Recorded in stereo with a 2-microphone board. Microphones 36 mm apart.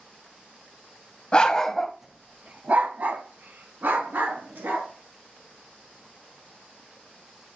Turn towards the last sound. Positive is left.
turn(degrees=-70)  # may be behind; listen again after turning